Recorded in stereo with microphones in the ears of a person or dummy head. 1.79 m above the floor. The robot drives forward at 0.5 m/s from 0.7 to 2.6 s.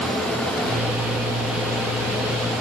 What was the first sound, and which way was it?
Only background noise.